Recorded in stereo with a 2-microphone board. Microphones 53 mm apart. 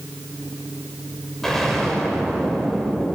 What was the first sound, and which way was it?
An explosion, 5° left (ahead or behind).